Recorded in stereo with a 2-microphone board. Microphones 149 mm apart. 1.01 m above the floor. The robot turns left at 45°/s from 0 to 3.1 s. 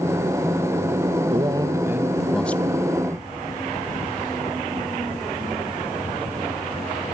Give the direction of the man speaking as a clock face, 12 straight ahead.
5 o'clock.